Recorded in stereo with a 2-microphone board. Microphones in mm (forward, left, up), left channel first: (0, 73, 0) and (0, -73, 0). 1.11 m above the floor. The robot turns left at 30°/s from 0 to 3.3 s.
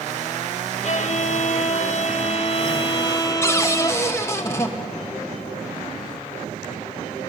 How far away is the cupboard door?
About 1.3 m.